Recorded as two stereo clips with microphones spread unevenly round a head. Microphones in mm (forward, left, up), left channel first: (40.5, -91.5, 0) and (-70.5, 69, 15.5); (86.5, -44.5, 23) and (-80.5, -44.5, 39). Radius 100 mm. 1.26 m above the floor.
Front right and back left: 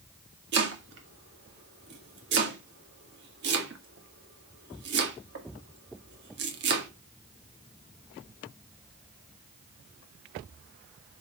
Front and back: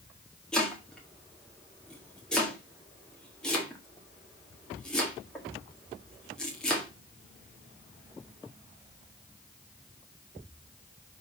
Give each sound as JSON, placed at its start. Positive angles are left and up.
{"t": 0.5, "sound": "chopping", "azimuth_deg": 85, "distance_m": 1.8}